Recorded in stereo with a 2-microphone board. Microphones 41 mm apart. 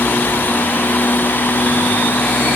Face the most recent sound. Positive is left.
No sound to turn to.